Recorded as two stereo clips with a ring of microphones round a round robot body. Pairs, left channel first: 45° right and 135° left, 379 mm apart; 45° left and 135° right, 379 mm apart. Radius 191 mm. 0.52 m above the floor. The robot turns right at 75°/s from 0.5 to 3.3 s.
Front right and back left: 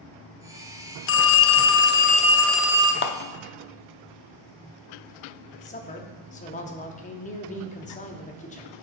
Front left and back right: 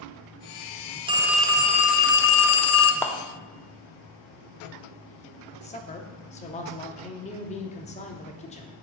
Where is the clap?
30° right, 0.5 m; by 3.1 s 25° right, 0.5 m.